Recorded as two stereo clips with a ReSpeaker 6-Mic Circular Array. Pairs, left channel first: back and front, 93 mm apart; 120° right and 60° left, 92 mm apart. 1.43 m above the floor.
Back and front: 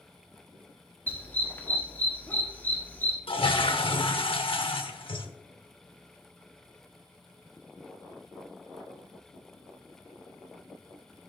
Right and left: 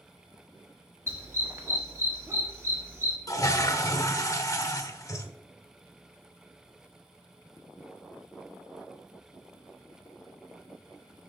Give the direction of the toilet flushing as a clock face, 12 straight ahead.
6 o'clock.